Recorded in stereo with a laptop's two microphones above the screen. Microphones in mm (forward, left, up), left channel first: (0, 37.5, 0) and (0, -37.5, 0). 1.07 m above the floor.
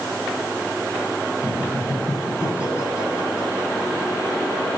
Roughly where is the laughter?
Left.